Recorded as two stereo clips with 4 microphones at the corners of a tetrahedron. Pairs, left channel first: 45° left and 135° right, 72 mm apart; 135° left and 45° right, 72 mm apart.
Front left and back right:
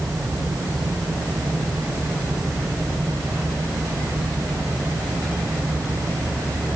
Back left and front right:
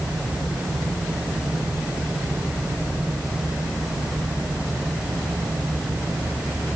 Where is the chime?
I don't hear a chime.